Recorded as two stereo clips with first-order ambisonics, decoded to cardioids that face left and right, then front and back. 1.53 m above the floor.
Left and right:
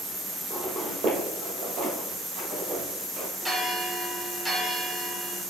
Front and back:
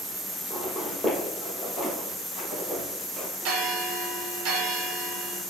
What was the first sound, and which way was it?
Footsteps, 90° right.